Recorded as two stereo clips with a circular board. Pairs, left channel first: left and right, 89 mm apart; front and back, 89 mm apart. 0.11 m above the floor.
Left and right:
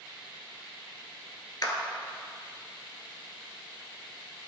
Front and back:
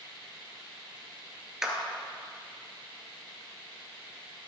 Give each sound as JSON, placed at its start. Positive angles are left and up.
{"t": 1.6, "sound": "a clap", "azimuth_deg": 100, "distance_m": 1.5}